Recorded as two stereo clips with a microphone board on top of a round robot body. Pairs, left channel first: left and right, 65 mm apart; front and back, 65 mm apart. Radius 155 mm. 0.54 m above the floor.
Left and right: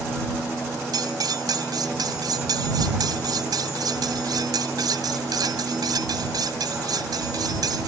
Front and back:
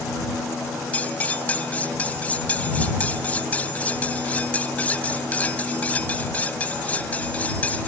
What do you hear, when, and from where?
0.9 s cutlery clinking: 70° right